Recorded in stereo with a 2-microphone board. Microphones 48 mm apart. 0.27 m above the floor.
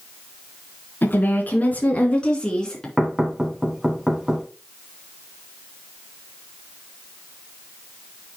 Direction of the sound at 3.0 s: 10° right (ahead or behind).